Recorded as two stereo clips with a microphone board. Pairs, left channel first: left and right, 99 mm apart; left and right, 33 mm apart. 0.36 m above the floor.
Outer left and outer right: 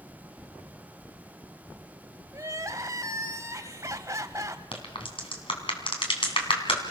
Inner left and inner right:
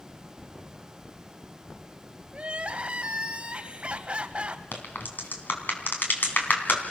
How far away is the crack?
About 3.5 m.